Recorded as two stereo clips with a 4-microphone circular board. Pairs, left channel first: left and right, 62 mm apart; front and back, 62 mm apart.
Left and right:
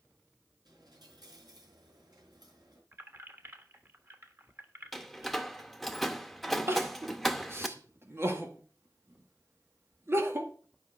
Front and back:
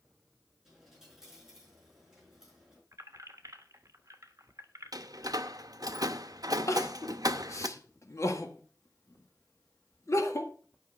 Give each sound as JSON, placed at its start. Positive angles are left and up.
{"t": 0.7, "sound": "a dropped coin", "azimuth_deg": -100, "distance_m": 5.0}
{"t": 2.9, "sound": "keys jangling", "azimuth_deg": -145, "distance_m": 1.3}
{"t": 4.9, "sound": "a door slam", "azimuth_deg": 180, "distance_m": 0.7}
{"t": 6.7, "sound": "crying", "azimuth_deg": -40, "distance_m": 1.8}